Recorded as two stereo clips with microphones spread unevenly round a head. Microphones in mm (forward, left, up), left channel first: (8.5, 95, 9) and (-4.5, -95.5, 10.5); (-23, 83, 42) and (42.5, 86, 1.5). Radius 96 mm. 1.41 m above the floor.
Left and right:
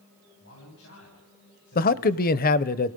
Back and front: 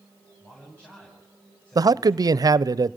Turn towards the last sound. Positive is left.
turn(degrees=40)